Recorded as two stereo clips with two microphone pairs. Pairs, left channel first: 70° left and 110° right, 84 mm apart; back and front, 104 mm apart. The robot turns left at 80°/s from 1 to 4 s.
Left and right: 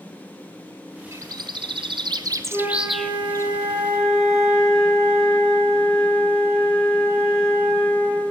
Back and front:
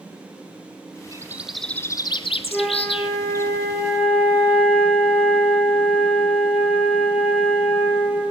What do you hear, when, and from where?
1.1 s a bird: 55° right, 0.6 m; by 3.5 s 115° left, 0.6 m
2.5 s a flute: 80° right, 4.5 m; by 8.2 s 160° left, 4.5 m